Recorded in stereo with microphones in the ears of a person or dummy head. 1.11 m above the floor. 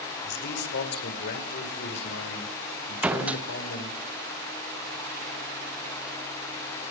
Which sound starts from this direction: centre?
A door slam, at 3.0 s.